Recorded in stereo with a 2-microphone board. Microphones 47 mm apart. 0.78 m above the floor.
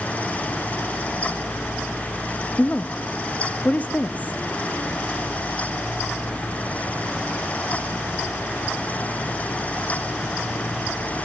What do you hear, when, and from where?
2.6 s a woman speaking: 35° left (ahead or behind), 0.7 m